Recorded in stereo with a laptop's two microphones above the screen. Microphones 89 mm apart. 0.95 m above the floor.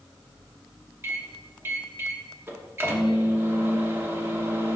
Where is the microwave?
25° right (ahead or behind), 1.0 m.